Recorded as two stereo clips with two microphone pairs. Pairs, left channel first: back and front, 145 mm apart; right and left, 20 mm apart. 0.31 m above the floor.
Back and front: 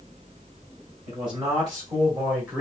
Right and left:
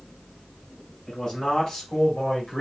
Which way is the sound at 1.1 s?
30° right.